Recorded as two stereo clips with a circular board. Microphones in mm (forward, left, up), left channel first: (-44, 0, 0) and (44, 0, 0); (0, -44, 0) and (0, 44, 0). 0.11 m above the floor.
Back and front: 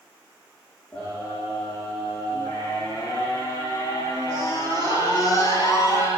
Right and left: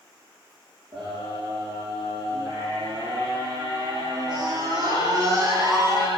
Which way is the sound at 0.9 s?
100° left.